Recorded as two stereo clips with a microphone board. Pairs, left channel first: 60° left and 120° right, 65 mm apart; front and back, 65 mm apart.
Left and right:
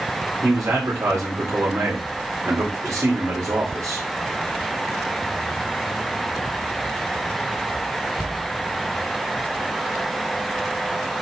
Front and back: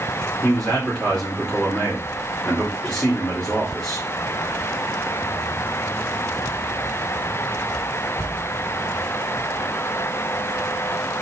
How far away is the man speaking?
About 2.5 m.